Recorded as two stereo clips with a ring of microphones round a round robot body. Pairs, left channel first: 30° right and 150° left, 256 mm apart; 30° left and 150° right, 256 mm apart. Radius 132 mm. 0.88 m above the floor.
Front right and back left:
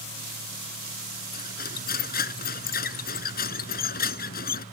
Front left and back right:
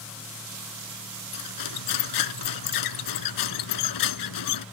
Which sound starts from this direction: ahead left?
Cutlery clinking, at 1.3 s.